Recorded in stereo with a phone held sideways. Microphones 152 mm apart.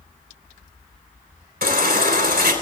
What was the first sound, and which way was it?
A baby crying, 80° right.